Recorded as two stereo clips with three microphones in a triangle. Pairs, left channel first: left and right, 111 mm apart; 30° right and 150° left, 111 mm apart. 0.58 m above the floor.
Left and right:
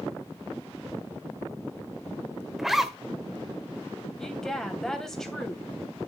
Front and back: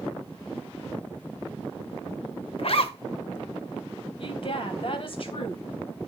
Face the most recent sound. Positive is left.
turn(degrees=5)